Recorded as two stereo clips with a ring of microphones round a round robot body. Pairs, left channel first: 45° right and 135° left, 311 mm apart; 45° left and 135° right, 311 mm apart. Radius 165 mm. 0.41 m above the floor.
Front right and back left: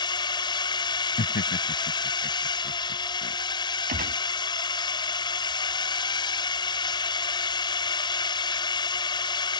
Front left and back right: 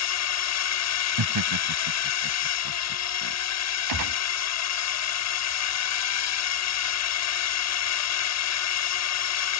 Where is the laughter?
110° right.